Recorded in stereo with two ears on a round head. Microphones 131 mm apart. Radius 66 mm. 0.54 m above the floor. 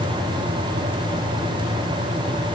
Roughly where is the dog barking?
No dog barking in this recording.